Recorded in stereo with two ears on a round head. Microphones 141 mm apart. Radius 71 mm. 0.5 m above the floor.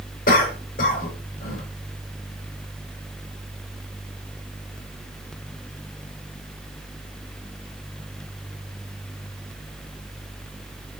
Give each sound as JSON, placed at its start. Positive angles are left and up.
{"t": 0.3, "sound": "a cough", "side_deg": 60, "distance_m": 2.0}